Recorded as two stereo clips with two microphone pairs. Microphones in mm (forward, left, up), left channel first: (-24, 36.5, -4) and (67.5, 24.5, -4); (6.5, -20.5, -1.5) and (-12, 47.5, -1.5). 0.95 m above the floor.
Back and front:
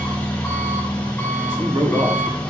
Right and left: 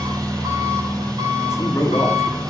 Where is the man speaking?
25° right, 1.8 m.